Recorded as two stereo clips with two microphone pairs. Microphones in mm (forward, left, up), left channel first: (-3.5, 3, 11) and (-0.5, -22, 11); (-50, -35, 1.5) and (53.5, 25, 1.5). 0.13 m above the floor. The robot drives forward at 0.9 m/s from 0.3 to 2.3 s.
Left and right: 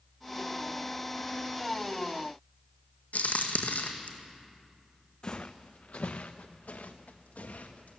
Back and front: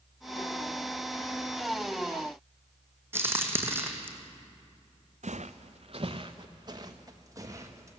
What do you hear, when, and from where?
3.1 s a crack: 100° left, 1.8 m
5.2 s footsteps: 40° left, 0.7 m; by 8.0 s 95° left, 1.9 m